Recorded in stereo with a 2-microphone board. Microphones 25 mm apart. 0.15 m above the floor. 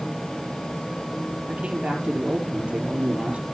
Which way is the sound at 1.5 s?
55° right (ahead or behind).